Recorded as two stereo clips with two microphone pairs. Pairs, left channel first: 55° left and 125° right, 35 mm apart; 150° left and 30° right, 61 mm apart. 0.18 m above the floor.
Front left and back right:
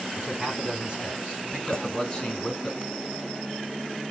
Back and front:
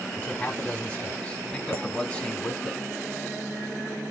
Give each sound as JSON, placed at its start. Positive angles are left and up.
{"t": 0.2, "sound": "a man speaking", "azimuth_deg": -160, "distance_m": 2.0}
{"t": 1.7, "sound": "a clink", "azimuth_deg": 115, "distance_m": 1.1}